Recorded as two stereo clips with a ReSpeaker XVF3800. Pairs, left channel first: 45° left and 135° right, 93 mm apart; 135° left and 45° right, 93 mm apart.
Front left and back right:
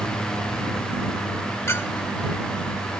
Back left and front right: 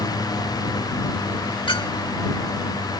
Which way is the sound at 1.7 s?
105° left.